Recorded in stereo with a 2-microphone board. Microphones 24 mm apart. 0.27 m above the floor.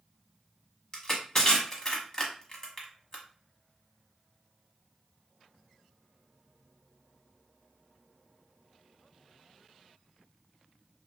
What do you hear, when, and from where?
0.9 s crushing: 25° left (ahead or behind), 1.0 m